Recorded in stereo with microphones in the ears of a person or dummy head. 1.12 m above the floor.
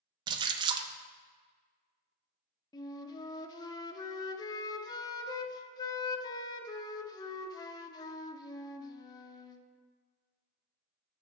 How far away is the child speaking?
I don't hear a child speaking.